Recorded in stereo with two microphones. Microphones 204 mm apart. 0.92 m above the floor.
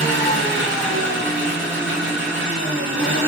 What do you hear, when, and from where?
0.0 s an engine running: 65° right (ahead or behind), 1.3 m